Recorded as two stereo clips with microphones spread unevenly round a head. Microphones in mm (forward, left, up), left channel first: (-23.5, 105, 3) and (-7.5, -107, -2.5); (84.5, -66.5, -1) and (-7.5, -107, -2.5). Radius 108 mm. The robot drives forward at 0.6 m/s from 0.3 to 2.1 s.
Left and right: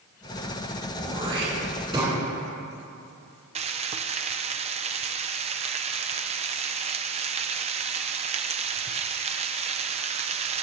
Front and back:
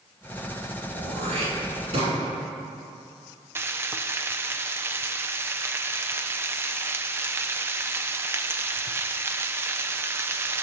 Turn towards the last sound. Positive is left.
turn(degrees=-115)